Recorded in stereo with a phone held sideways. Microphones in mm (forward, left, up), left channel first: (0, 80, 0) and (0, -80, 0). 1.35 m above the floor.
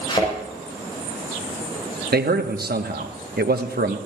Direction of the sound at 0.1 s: 35° left (ahead or behind).